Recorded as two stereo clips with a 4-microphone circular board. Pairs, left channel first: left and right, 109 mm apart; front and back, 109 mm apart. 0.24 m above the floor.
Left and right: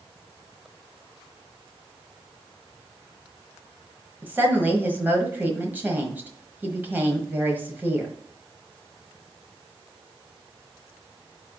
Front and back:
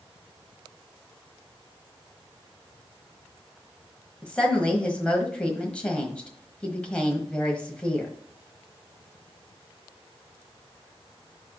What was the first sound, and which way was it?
A woman speaking, 55° right.